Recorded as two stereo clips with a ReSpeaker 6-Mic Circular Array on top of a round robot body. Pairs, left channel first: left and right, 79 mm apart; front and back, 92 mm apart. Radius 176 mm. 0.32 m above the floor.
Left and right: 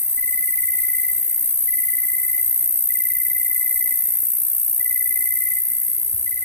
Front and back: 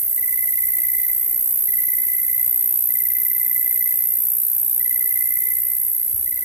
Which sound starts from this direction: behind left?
An insect, at 0.0 s.